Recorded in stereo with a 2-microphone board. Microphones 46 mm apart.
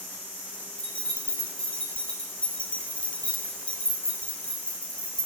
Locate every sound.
0.8 s keys jangling: 25° left (ahead or behind), 0.7 m